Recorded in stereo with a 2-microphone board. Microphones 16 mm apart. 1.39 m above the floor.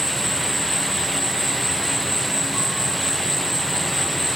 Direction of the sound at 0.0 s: 15° left (ahead or behind).